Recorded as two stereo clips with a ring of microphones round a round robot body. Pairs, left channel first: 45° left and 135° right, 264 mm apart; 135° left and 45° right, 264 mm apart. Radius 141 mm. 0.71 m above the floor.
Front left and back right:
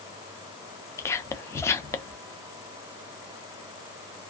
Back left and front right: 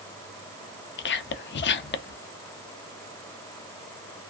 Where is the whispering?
120° left, 0.5 m.